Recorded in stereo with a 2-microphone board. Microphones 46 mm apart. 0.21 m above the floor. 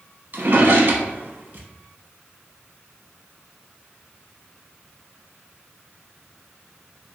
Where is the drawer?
55° right (ahead or behind), 0.6 m.